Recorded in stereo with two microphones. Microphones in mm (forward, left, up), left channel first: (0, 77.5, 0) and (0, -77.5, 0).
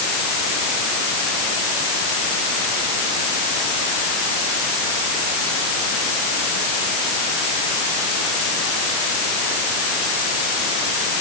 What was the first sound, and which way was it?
Only background noise.